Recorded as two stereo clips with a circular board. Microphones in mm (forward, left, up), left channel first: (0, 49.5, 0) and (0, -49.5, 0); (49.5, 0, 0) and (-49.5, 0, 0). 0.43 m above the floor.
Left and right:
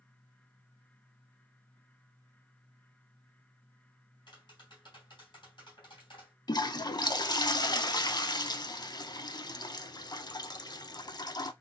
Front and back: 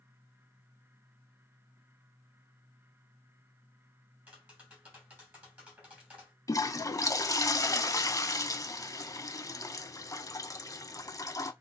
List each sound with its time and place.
4.3 s tapping: 110° left, 3 m
6.5 s a toilet flushing: 50° left, 0.5 m